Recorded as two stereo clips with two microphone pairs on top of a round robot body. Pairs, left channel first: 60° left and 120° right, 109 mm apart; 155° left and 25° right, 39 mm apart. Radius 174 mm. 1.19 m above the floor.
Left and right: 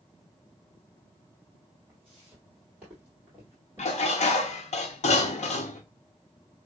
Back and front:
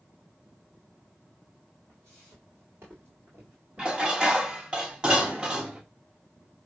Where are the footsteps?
35° right, 2.5 m; by 4.8 s 110° right, 1.3 m.